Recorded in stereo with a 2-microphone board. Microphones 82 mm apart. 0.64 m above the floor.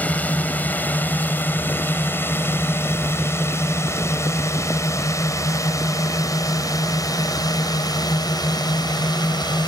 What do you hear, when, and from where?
0.0 s a drone: 20° left (ahead or behind); by 9.7 s 55° left (ahead or behind)